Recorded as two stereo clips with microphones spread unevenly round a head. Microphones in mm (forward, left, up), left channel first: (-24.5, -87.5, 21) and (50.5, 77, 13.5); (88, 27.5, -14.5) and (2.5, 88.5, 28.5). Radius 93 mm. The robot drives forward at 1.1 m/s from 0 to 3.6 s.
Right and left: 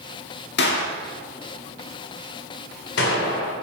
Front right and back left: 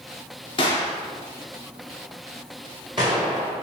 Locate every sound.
0.6 s a gunshot: 85° right, 1.8 m; by 3.5 s 150° right, 3.5 m